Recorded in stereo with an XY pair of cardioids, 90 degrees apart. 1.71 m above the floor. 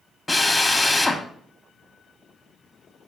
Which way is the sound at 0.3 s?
25° left.